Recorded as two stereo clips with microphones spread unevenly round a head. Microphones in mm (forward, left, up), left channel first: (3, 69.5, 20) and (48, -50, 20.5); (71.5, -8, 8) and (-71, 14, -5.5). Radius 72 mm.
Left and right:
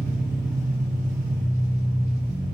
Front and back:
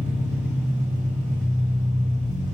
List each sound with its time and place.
0.0 s an engine running: 145° right, 2.5 m